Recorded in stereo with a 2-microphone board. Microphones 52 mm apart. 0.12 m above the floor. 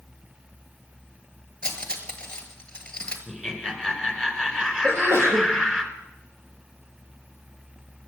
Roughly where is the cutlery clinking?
Centre.